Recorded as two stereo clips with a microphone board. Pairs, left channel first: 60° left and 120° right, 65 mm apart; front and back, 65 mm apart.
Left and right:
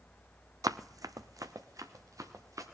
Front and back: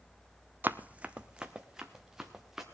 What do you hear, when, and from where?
0.6 s running footsteps: 125° right, 0.5 m; by 2.6 s 95° right, 1.9 m